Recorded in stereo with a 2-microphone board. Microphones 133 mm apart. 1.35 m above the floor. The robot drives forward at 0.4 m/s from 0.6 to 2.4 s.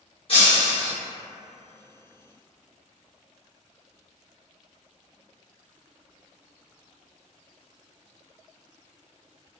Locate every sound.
0.3 s breaking glass: 45° left (ahead or behind), 1.1 m; by 0.9 s 50° left (ahead or behind), 1.0 m